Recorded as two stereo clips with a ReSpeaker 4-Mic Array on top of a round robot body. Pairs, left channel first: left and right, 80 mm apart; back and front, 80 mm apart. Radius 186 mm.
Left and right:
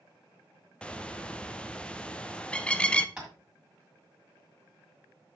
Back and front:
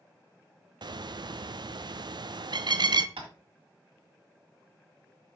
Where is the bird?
15° left, 0.8 m.